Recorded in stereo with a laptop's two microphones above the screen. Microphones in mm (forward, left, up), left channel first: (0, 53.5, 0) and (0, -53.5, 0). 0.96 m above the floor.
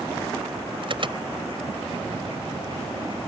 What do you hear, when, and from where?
0.8 s an alarm: 50° right (ahead or behind)